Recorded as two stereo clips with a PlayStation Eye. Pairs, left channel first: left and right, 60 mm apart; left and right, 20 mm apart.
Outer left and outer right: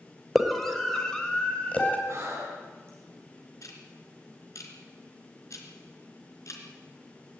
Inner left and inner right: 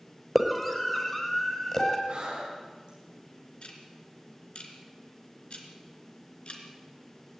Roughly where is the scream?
Centre.